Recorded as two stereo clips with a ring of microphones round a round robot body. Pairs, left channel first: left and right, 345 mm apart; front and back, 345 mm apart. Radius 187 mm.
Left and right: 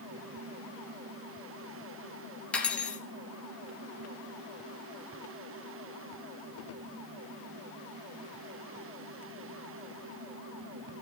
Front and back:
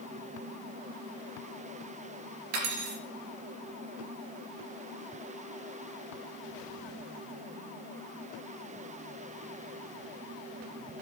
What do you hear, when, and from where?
2.5 s cutlery clinking: 175° left, 3 m